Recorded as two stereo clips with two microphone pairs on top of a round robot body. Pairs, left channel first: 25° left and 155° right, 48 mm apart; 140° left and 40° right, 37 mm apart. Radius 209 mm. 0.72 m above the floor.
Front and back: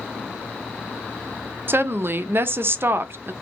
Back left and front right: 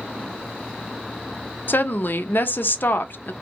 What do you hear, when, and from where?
1.7 s a woman speaking: 165° left, 0.5 m